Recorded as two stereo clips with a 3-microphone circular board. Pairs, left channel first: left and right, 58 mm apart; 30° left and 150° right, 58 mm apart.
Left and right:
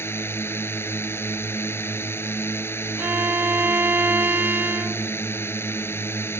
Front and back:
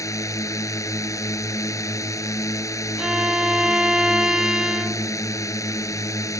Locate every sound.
0.0 s a drone: 45° left
3.0 s a violin: 80° right